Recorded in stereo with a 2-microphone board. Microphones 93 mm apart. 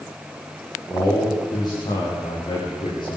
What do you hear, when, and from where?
0.9 s a man speaking: 40° left (ahead or behind), 7 m; by 3.2 s 50° left (ahead or behind), 8 m